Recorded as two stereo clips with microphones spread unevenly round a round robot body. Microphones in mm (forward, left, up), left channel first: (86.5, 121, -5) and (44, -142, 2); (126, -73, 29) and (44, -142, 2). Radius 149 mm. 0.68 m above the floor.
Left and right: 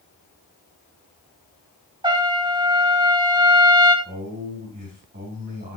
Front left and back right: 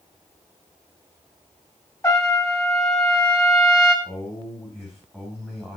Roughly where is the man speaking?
Ahead right.